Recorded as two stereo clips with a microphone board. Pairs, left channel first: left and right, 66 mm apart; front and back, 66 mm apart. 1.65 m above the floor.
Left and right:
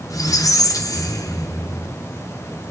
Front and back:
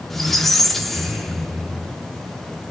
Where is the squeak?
85° left, 1.0 m.